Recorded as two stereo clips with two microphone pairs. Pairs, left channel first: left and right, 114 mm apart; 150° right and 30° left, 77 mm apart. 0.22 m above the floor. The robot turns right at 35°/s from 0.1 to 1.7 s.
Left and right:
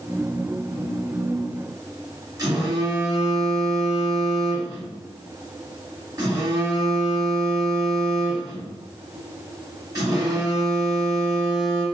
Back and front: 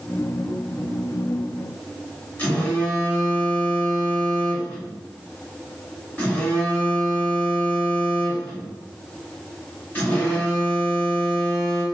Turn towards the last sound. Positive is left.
turn(degrees=-110)